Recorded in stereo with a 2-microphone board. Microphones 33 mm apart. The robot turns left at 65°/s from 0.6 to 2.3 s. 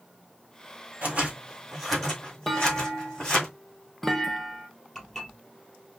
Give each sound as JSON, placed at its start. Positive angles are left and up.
{"t": 1.0, "sound": "scissors", "side_deg": -50, "distance_m": 2.5}
{"t": 2.5, "sound": "a clunk", "side_deg": 5, "distance_m": 0.6}
{"t": 5.0, "sound": "dishes clattering", "side_deg": 15, "distance_m": 2.5}